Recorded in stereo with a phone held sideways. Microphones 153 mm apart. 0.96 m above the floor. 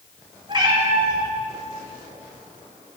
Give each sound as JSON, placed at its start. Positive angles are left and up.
{"t": 0.5, "sound": "a cat meowing", "side_deg": -30, "distance_m": 1.3}